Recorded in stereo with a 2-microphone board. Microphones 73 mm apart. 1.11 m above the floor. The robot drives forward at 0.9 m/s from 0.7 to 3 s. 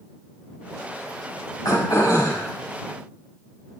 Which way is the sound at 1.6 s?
55° left (ahead or behind).